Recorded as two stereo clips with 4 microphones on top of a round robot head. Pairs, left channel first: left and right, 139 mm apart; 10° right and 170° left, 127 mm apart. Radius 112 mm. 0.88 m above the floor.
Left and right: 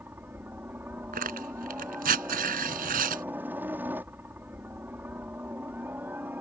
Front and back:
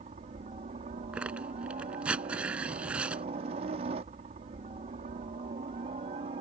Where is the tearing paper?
105° right.